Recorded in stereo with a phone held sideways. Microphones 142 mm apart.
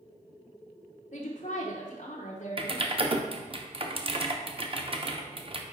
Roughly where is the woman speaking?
Left.